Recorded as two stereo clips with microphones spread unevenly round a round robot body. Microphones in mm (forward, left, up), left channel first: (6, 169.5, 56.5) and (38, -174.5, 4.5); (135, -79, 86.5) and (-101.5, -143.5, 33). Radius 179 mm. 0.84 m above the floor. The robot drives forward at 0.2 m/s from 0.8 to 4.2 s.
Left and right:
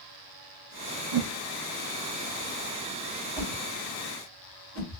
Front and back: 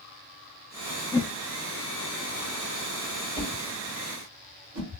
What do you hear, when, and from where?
1.1 s a whoosh: 65° right, 0.6 m
3.4 s a whoosh: 175° left, 2.5 m